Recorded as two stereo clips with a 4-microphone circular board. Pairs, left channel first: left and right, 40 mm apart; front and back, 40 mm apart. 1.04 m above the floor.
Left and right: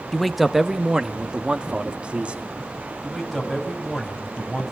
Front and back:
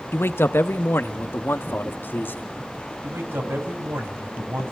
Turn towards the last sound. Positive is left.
turn(degrees=-175)